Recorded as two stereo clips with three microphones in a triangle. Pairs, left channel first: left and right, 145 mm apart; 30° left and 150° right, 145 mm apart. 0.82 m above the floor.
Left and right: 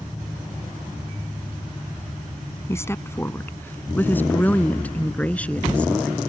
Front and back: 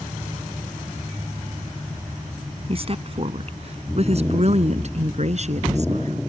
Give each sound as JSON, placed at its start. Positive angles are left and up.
{"t": 2.7, "sound": "a woman speaking", "azimuth_deg": 160}